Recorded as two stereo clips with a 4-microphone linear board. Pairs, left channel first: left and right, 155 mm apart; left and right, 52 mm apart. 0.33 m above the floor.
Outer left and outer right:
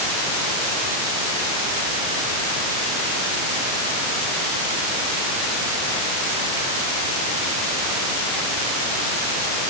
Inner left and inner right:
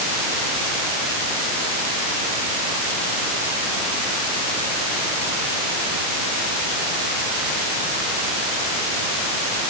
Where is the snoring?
No snoring in this recording.